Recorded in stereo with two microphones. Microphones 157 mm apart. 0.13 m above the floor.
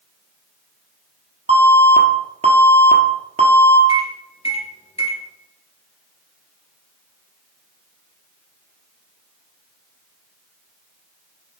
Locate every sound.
1.5 s an alarm: 40° right (ahead or behind), 1.5 m
3.9 s a microwave: 40° left (ahead or behind), 2.5 m